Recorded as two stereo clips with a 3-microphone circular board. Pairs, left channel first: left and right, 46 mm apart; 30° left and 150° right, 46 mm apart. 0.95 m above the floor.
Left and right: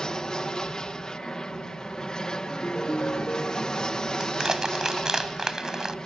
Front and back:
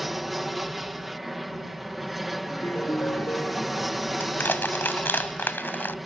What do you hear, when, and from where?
0.0 s an aircraft: 130° left
2.5 s a ringtone: 40° left
4.2 s crushing: 10° right